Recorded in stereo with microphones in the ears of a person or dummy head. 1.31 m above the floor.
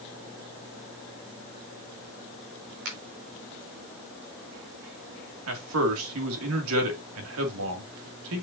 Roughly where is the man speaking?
Right.